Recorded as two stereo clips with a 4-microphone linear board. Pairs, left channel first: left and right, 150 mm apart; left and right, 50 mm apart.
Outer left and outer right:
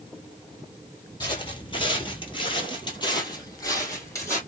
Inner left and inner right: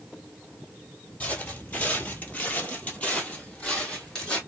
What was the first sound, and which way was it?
Footsteps, 30° left (ahead or behind).